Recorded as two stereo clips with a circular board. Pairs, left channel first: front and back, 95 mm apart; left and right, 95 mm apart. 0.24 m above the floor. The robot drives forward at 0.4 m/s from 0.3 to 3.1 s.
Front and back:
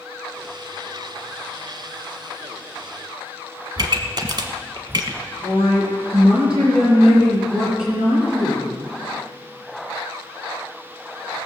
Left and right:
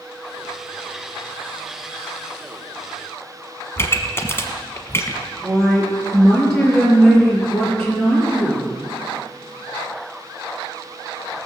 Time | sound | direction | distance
3.8 | a pop | 145° left | 1.2 m
5.4 | a woman speaking | 175° left | 5 m